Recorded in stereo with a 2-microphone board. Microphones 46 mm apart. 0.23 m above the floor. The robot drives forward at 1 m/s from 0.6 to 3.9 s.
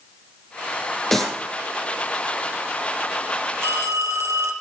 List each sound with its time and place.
1.1 s a clap: 5° left (ahead or behind), 6.5 m
3.6 s a phone ringing: 75° right (ahead or behind), 3.5 m; by 4.5 s 80° right, 3.5 m